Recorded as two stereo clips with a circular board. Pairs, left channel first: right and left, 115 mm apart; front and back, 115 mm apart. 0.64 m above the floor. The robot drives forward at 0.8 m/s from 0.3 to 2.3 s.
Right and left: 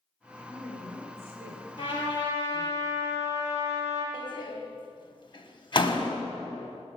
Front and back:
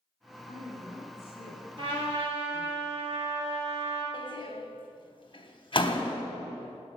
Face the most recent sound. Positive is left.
turn(degrees=-45)